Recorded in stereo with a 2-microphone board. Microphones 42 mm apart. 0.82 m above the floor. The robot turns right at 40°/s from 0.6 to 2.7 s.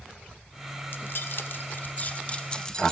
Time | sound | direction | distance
0.9 | keys jangling | 60° left (ahead or behind) | 0.6 m